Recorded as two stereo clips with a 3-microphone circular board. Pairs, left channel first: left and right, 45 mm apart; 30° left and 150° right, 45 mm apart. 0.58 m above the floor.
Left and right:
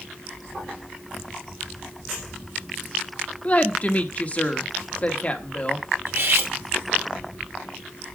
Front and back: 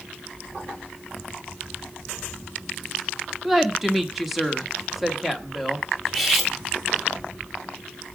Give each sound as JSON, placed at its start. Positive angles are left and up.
{"t": 3.4, "sound": "a woman speaking", "azimuth_deg": 125, "distance_m": 1.3}
{"t": 6.1, "sound": "cutlery clinking", "azimuth_deg": -60, "distance_m": 1.9}